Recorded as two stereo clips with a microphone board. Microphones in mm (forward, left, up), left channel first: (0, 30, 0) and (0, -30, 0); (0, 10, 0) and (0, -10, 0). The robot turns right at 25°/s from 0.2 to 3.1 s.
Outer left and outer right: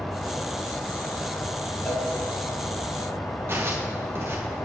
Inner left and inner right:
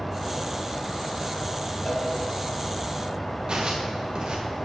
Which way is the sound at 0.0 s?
15° left.